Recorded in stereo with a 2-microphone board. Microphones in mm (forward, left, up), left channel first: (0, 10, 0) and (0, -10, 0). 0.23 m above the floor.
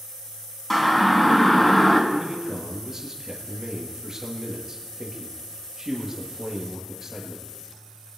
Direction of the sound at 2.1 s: 15° right (ahead or behind).